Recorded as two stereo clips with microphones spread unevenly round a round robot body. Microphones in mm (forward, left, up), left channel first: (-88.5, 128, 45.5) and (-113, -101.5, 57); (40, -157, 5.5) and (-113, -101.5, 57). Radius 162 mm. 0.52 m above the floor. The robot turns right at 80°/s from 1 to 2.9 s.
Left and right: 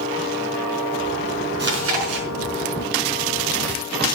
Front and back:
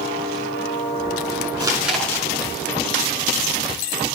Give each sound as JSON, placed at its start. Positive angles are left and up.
{"t": 1.6, "sound": "chewing", "azimuth_deg": -135, "distance_m": 5.0}